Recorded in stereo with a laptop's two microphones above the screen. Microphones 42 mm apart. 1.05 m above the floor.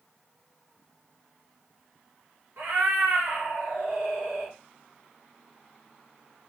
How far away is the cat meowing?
About 1.8 m.